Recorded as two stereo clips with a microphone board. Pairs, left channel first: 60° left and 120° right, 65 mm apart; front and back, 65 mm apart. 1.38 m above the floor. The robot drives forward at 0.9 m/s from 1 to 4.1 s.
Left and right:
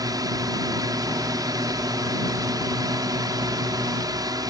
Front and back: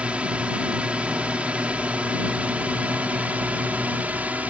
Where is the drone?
110° right; by 4.5 s 115° right.